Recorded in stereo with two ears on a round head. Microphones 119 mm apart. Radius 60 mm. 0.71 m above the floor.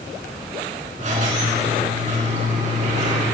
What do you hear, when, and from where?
1.0 s a squeak: 65° right (ahead or behind), 4 m